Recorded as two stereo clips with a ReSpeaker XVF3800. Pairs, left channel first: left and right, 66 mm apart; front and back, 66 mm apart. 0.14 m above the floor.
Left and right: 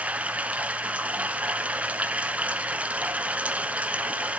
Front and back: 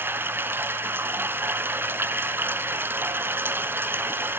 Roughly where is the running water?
Behind right.